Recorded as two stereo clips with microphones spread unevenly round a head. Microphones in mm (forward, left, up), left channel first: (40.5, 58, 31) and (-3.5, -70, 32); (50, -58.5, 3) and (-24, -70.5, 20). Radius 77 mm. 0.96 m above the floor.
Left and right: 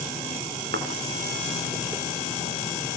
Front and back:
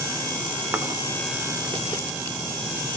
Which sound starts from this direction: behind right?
A thud, at 0.7 s.